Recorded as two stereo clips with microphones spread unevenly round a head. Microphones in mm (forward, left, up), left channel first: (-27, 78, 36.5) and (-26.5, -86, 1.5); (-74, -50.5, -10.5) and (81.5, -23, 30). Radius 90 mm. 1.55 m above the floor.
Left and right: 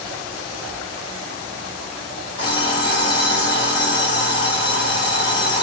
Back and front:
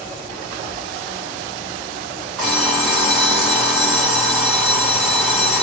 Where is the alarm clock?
80° left, 1.0 m.